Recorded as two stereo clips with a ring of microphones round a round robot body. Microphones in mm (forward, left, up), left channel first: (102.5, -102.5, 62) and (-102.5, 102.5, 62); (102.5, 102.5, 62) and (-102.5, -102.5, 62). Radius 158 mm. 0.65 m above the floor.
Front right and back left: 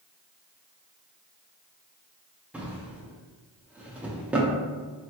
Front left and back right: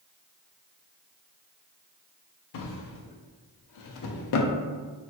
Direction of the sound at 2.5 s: 50° left.